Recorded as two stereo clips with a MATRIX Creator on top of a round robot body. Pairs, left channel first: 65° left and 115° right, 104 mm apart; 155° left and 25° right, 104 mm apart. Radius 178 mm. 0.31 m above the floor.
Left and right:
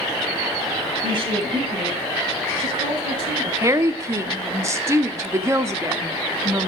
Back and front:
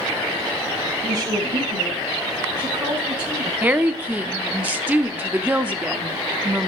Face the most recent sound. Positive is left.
turn(degrees=-85)